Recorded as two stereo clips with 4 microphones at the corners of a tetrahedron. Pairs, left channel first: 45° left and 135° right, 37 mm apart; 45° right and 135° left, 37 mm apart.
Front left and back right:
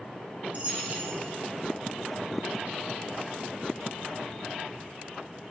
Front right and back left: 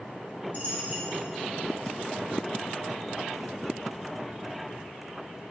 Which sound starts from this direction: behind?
A dropped coin, at 0.5 s.